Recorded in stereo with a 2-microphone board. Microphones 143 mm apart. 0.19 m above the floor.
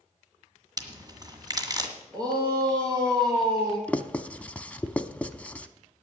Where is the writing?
10° left (ahead or behind), 0.6 m.